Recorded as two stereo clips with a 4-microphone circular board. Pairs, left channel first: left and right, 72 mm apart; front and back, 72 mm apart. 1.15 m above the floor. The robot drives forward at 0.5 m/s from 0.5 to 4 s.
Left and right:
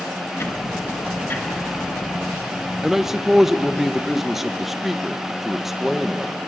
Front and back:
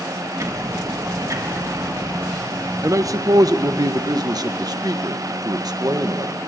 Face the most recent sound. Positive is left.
turn(degrees=-175)